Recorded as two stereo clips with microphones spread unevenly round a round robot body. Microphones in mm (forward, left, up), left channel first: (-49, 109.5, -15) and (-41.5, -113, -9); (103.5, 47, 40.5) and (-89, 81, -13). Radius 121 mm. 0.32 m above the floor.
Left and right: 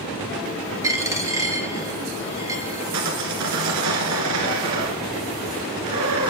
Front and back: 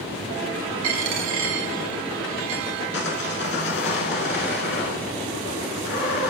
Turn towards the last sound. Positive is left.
turn(degrees=-60)